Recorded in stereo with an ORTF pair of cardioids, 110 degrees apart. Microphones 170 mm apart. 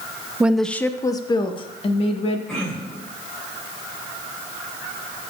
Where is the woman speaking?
10° right, 0.6 m; by 2.4 s 35° left, 1.7 m.